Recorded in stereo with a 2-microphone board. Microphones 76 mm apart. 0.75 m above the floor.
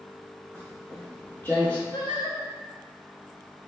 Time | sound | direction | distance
0.5 | footsteps | 25° left (ahead or behind) | 1.7 m
1.9 | singing | 70° left (ahead or behind) | 0.7 m